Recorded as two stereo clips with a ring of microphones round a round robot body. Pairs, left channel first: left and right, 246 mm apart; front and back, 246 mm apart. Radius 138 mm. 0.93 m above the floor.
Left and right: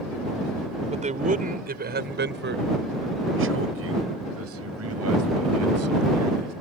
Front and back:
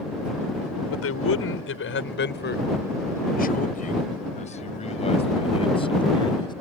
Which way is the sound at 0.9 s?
25° right.